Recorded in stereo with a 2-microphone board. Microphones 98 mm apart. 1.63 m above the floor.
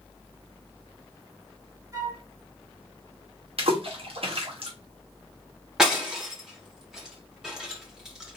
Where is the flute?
35° right (ahead or behind), 1.8 m.